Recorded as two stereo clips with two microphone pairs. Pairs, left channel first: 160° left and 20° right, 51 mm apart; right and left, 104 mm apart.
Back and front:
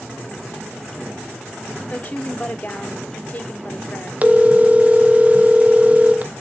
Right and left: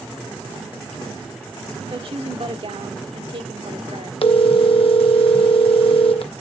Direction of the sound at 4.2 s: 75° right.